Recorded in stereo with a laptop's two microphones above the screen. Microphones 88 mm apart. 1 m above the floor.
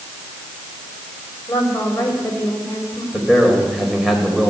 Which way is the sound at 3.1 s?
Centre (ahead or behind).